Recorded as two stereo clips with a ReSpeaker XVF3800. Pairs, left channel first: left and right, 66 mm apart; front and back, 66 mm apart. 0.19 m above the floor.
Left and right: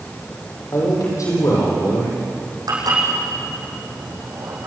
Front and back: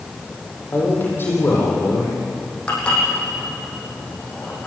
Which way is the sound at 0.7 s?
60° left.